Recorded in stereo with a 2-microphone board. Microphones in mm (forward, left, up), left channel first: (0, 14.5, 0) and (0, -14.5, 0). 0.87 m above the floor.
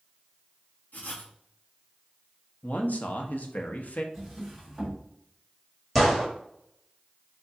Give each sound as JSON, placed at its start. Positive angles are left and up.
{"t": 0.9, "sound": "writing", "side_deg": 65, "distance_m": 1.4}
{"t": 2.6, "sound": "a man speaking", "side_deg": 60, "distance_m": 0.9}
{"t": 4.1, "sound": "a drawer", "side_deg": -5, "distance_m": 2.5}
{"t": 6.0, "sound": "a gunshot", "side_deg": 5, "distance_m": 1.9}